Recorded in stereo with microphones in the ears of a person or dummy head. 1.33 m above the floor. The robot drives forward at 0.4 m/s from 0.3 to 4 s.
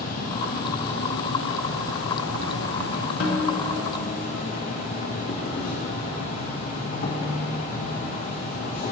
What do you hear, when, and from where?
0.0 s an insect: 50° left (ahead or behind), 1.1 m
3.2 s a snare drum: 75° left (ahead or behind), 1.2 m; by 3.7 s 70° left (ahead or behind), 1.3 m